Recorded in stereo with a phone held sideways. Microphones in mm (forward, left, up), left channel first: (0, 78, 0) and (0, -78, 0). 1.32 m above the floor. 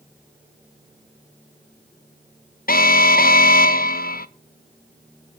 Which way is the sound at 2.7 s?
70° left (ahead or behind).